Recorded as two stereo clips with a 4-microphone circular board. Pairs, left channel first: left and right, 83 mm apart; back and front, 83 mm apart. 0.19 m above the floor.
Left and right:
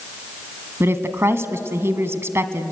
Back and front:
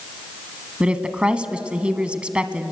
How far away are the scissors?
No scissors in this recording.